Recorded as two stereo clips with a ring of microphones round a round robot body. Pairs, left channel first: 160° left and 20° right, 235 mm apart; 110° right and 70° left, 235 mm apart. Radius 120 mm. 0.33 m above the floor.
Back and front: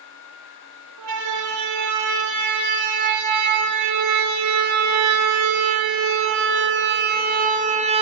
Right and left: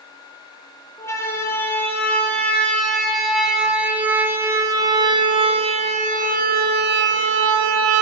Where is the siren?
35° right, 7 m; by 8.0 s 45° left, 3 m.